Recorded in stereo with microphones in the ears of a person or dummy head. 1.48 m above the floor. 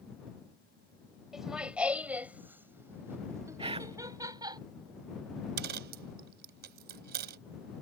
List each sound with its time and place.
1.3 s laughter: 5° right (ahead or behind); by 4.6 s 20° right (ahead or behind)
3.6 s whispering: 25° right (ahead or behind)
5.6 s a dropped coin: 55° right (ahead or behind)